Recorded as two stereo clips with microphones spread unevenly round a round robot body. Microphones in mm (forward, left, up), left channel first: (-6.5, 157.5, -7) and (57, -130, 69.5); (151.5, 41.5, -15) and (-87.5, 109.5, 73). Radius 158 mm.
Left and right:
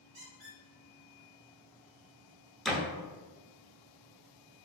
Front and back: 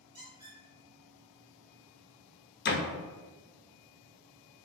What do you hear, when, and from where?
0.1 s a squeak: 130° right, 1.4 m
2.6 s a door slam: 20° left, 0.5 m